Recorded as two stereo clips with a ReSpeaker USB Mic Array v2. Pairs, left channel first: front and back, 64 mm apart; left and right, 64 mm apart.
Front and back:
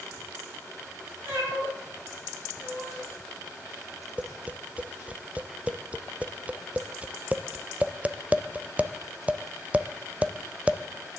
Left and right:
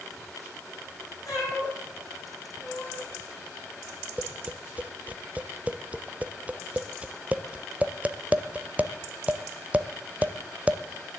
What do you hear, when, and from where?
1.2 s a cat meowing: 120° left, 9 m; by 3.0 s 110° left, 7.5 m
4.2 s tapping: 135° right, 0.6 m